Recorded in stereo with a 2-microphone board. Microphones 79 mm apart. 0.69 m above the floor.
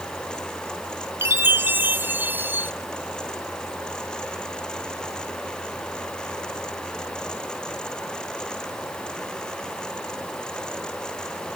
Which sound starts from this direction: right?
A chime, at 1.2 s.